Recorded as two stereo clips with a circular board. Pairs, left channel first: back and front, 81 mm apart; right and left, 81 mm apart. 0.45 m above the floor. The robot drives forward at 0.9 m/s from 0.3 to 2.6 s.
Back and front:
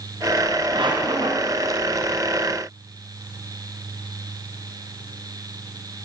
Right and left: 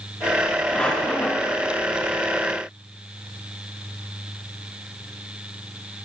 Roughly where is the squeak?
Ahead.